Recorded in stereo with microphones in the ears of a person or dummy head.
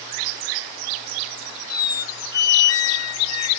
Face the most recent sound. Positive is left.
turn(degrees=20)  # may be behind; listen again after turning